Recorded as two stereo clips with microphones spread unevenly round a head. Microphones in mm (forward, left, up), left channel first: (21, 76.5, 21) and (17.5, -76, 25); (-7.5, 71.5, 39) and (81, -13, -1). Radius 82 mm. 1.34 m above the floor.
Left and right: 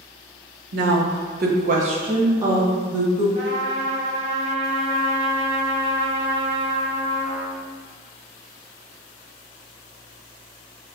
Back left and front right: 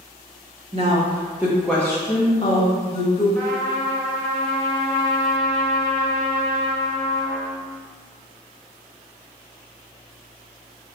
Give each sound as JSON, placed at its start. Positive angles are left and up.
{"t": 0.7, "sound": "a woman speaking", "azimuth_deg": -90, "distance_m": 0.7}
{"t": 3.4, "sound": "a trumpet", "azimuth_deg": -75, "distance_m": 1.1}